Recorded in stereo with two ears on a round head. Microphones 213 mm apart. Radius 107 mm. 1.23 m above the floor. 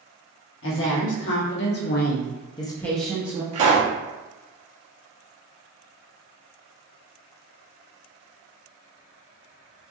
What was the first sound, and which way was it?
A woman speaking, 55° left (ahead or behind).